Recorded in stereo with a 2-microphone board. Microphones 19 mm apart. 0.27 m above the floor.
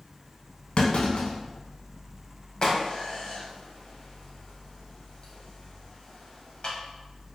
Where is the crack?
45° left (ahead or behind), 0.8 m.